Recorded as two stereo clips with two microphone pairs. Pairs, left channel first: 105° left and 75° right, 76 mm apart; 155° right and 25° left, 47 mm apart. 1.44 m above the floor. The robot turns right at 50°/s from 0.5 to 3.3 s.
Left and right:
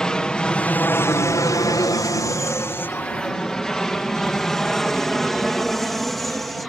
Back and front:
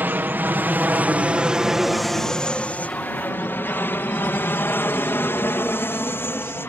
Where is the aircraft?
25° left; by 6.7 s 170° right.